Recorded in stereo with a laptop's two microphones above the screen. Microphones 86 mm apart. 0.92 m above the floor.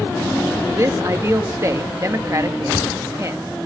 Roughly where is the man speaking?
Right.